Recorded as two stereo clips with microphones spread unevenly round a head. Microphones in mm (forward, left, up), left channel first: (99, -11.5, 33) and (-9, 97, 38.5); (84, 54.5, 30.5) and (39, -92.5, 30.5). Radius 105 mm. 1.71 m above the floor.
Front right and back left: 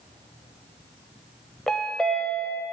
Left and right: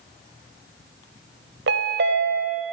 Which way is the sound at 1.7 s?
135° right.